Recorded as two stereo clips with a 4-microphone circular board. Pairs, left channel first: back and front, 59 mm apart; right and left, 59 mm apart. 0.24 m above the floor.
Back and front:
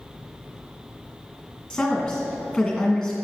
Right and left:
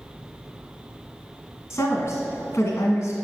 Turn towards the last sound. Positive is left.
turn(degrees=-105)